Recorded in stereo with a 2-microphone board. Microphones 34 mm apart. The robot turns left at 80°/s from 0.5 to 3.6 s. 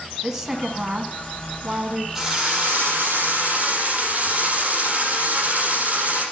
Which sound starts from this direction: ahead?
A drill, at 2.1 s.